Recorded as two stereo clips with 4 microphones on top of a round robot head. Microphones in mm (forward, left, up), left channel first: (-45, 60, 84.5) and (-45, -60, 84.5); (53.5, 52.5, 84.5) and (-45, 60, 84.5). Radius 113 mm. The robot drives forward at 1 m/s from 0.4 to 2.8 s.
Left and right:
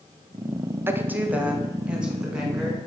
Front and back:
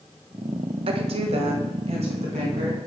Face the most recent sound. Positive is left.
turn(degrees=-175)